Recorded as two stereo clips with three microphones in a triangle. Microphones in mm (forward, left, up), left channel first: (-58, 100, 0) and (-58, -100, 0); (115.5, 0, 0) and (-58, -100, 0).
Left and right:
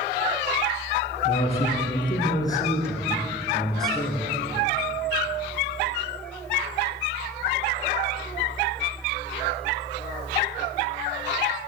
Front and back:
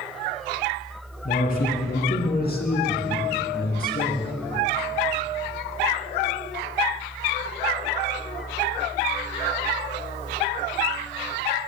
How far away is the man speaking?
About 2 m.